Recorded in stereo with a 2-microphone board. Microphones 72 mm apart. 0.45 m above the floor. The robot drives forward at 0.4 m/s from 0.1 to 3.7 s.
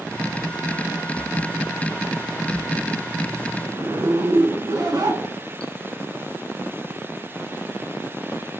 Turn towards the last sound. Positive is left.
turn(degrees=-60)  # may be behind; listen again after turning